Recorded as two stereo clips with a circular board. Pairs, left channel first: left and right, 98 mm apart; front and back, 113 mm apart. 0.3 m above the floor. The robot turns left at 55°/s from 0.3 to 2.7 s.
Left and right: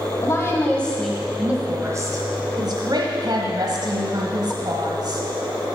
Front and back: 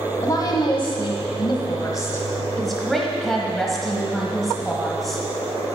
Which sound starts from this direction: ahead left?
A woman speaking, at 0.2 s.